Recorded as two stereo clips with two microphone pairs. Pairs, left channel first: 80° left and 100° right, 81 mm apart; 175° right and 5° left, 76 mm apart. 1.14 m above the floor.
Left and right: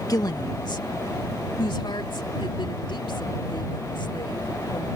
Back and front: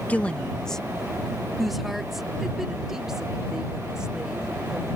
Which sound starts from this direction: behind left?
A woman speaking, at 0.1 s.